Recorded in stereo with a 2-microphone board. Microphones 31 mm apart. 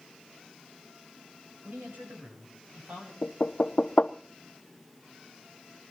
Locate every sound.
1.6 s a man speaking: 85° right, 9 m; by 3.1 s 75° right (ahead or behind), 9.5 m
3.2 s knocking: 50° left (ahead or behind), 0.7 m